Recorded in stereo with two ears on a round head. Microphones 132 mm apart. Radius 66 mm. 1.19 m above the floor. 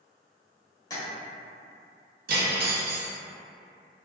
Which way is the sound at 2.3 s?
65° right (ahead or behind).